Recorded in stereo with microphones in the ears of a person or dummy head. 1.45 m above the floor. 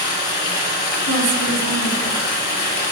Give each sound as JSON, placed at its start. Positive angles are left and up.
{"t": 0.0, "sound": "running water", "side_deg": 60, "distance_m": 2.5}
{"t": 1.1, "sound": "a woman speaking", "side_deg": -70, "distance_m": 2.0}